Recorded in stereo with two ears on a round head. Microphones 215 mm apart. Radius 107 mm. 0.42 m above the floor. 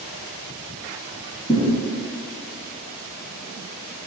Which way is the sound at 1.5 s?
Centre (ahead or behind).